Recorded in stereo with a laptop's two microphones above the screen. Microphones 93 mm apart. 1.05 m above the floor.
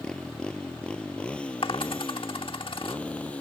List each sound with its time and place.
0.0 s a motorcycle: 10° left (ahead or behind); by 3.4 s 15° left (ahead or behind)
1.6 s a dropped coin: 70° left (ahead or behind)